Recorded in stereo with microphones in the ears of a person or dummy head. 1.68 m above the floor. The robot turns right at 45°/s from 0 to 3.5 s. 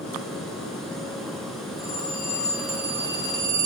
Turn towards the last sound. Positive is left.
turn(degrees=-145)